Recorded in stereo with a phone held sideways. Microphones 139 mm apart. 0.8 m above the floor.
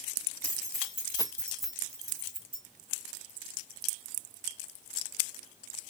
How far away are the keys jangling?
About 1.1 m.